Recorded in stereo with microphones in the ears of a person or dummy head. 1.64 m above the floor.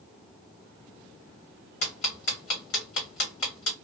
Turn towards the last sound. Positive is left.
turn(degrees=65)  # may be behind; listen again after turning